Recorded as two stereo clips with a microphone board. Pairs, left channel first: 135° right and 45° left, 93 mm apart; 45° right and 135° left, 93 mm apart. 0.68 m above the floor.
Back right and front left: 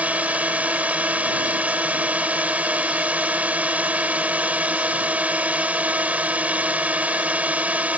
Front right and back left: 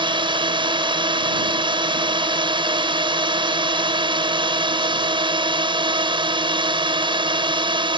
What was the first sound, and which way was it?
A drone, 120° left.